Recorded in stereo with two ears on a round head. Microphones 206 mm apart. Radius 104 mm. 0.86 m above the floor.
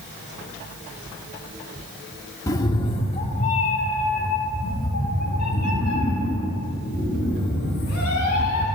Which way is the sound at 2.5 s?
15° left (ahead or behind).